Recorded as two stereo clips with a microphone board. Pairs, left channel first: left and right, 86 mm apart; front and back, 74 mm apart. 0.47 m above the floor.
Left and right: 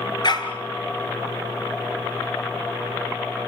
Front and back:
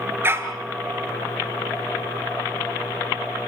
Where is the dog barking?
120° left, 2 m.